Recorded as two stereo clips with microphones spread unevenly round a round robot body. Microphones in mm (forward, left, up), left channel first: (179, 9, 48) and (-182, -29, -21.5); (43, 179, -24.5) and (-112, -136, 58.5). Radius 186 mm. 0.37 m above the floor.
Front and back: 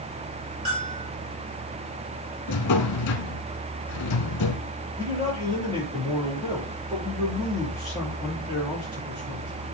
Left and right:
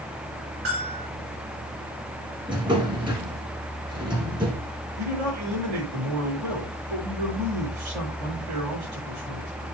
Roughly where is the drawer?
Ahead right.